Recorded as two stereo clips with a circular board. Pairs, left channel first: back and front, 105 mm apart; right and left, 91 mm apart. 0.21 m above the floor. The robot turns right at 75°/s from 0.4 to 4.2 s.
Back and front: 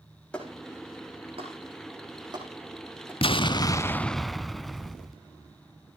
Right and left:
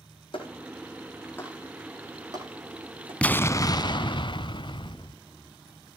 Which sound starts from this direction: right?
A clap, at 0.3 s.